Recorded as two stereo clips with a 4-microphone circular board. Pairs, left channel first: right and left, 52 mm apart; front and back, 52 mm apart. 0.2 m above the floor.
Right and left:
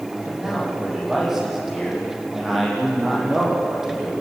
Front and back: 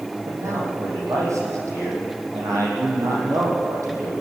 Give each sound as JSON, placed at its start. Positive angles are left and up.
{"t": 0.3, "sound": "a man speaking", "azimuth_deg": 175, "distance_m": 7.5}